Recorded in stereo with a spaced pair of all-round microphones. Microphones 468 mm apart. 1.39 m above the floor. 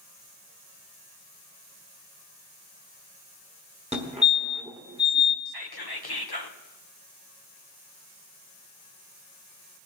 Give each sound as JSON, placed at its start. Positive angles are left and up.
{"t": 3.9, "sound": "a fire alarm", "side_deg": -15, "distance_m": 1.3}
{"t": 5.5, "sound": "whispering", "side_deg": 50, "distance_m": 1.0}